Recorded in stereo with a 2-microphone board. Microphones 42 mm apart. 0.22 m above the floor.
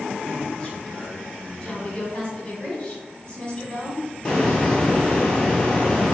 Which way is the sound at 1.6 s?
20° left (ahead or behind).